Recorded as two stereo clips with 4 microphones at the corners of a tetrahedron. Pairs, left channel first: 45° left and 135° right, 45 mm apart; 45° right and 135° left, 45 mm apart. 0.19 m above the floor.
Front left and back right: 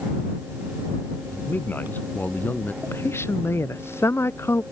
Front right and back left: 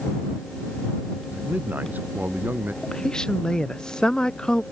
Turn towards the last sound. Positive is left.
turn(degrees=25)